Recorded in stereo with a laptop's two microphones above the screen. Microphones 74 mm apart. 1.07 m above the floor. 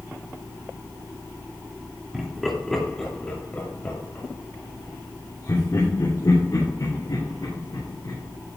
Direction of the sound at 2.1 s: 5° right (ahead or behind).